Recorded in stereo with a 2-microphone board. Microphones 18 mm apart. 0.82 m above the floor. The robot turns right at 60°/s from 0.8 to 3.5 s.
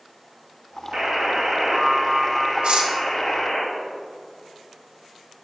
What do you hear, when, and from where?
0.9 s a buzzer: 100° right, 1.4 m; by 3.6 s 55° left, 1.4 m
2.6 s cutlery clinking: 70° right (ahead or behind), 1.1 m; by 2.9 s 85° right, 1.1 m